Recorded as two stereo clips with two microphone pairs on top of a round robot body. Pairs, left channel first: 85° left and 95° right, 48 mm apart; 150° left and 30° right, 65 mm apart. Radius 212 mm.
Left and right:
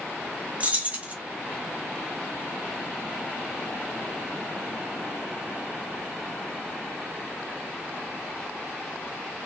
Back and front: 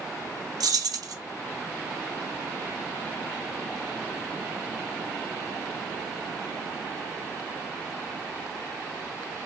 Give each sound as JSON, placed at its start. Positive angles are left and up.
{"t": 0.6, "sound": "keys jangling", "azimuth_deg": -40, "distance_m": 1.1}